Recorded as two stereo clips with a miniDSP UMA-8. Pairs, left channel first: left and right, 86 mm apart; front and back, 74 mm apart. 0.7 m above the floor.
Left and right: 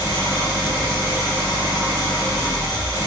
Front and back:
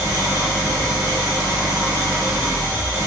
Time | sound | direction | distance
0.0 | an engine running | 140° right | 2.5 m